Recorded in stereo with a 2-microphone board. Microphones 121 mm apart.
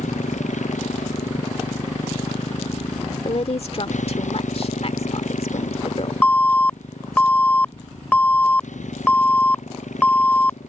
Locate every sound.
0.0 s a motorcycle: 85° left; by 10.7 s 80° left
3.2 s a woman speaking: 55° left (ahead or behind)
6.2 s an alarm: 15° left (ahead or behind)